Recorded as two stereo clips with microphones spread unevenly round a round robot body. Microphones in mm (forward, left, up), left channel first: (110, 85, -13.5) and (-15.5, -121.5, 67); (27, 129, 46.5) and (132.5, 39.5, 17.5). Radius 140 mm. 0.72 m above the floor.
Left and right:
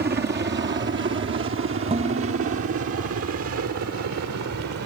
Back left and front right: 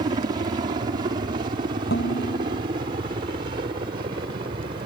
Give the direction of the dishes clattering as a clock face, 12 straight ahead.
6 o'clock.